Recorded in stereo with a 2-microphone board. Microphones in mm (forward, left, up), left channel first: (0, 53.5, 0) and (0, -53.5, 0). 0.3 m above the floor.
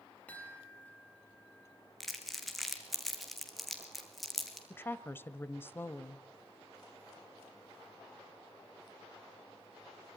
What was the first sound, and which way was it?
A chime, 15° left (ahead or behind).